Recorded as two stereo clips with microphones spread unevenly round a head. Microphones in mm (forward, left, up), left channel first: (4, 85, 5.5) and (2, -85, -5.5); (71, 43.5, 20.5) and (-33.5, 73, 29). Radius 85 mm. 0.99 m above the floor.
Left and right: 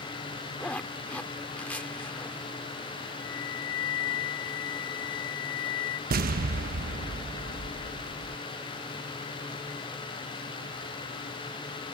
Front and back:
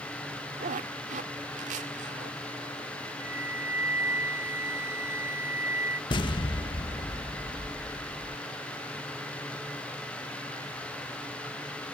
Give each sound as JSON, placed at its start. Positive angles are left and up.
{"t": 0.6, "sound": "a zipper", "azimuth_deg": 170}
{"t": 3.2, "sound": "a flute", "azimuth_deg": 95}
{"t": 6.1, "sound": "an explosion", "azimuth_deg": -60}